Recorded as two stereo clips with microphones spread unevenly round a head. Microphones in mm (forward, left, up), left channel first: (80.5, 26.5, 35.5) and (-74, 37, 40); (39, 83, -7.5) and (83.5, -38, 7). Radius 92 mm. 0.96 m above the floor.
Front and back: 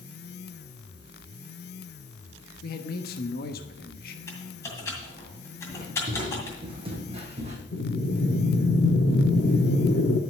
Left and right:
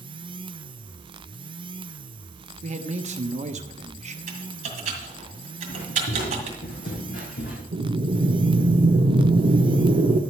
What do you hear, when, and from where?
2.6 s a man speaking: 35° right, 1.1 m
4.3 s typing on a keyboard: 80° right, 2 m
5.7 s footsteps: 110° left, 3 m; by 7.6 s 130° left, 2.5 m
7.7 s breathing: 45° right, 0.9 m